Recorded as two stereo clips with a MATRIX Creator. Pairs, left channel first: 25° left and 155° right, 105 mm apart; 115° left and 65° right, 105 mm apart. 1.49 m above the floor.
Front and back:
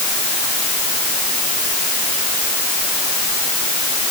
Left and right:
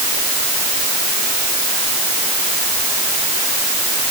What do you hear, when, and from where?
Only background noise.